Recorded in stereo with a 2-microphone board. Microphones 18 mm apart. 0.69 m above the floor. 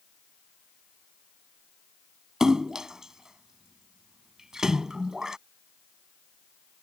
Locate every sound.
2.4 s a splash: 30° right (ahead or behind)